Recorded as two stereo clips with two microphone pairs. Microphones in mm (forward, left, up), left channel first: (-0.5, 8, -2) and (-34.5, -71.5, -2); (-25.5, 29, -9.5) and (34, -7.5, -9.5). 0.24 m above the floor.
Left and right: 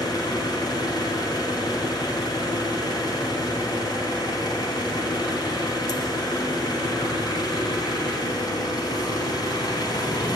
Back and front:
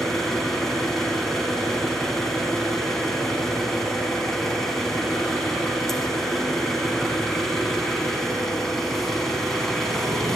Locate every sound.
0.0 s an engine running: 65° left, 1.3 m